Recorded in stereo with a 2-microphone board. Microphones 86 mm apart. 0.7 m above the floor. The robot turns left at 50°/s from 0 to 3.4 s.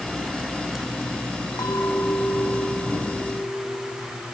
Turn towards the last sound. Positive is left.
turn(degrees=-40)